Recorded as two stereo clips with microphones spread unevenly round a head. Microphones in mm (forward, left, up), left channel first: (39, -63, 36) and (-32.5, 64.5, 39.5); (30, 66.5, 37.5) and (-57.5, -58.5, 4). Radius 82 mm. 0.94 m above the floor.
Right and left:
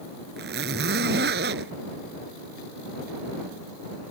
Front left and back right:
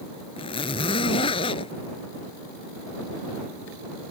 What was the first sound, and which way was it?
A zipper, 105° left.